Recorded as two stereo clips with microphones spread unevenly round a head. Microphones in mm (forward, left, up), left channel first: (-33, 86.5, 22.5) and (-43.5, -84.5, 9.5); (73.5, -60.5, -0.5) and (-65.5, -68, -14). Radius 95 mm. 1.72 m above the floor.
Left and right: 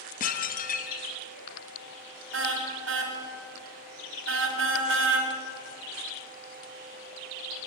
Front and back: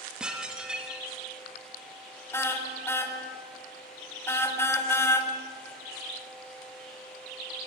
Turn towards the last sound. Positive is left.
turn(degrees=-65)